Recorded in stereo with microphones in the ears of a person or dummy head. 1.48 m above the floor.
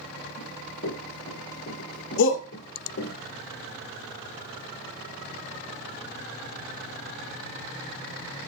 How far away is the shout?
About 1.2 m.